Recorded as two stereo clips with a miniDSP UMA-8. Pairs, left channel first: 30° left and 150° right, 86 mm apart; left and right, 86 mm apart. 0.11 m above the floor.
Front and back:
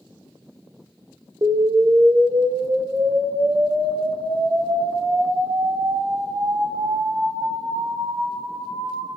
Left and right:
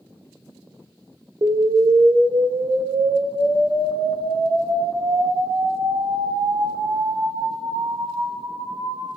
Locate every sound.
1.4 s an explosion: 120° right, 0.8 m